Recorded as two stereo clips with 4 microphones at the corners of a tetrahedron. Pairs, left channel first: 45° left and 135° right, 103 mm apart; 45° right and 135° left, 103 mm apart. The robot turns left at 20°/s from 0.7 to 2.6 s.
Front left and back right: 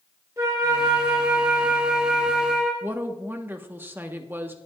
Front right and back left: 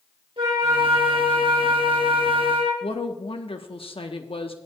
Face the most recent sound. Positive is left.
turn(degrees=-65)